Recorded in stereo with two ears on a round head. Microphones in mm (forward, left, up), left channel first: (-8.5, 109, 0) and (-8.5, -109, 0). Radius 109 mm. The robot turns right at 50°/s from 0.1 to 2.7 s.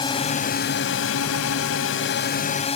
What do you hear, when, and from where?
0.0 s a drone: 20° left; by 2.8 s 150° left